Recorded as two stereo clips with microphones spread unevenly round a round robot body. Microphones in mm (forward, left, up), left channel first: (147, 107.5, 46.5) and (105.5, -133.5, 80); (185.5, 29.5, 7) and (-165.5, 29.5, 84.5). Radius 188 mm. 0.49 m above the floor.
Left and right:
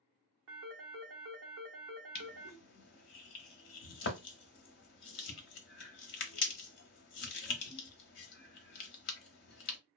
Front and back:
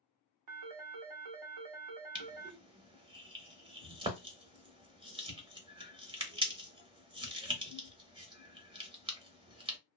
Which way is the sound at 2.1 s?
95° left.